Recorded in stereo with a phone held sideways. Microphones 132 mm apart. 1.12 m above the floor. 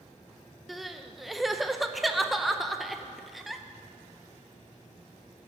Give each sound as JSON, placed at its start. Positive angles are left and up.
{"t": 0.7, "sound": "crying", "side_deg": 0, "distance_m": 0.6}